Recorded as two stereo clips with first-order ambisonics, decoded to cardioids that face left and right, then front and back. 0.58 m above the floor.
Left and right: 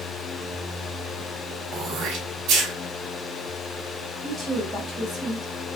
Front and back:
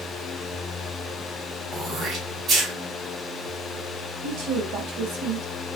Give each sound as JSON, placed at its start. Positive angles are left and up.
{"t": 1.7, "sound": "throat clearing", "azimuth_deg": -125, "distance_m": 1.6}
{"t": 4.2, "sound": "a woman speaking", "azimuth_deg": 170, "distance_m": 2.5}